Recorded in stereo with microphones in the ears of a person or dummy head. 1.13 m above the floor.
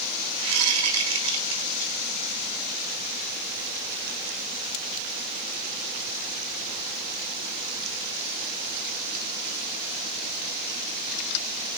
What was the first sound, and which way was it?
A whoosh, 70° right (ahead or behind).